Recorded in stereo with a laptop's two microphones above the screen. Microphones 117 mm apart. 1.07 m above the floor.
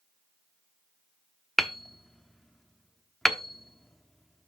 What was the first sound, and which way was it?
Hammering, 5° left (ahead or behind).